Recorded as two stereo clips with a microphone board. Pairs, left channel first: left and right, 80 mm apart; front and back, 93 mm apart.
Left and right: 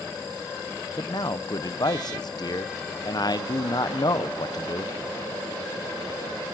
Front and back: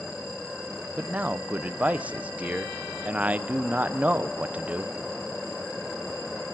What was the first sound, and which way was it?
A man speaking, 105° left.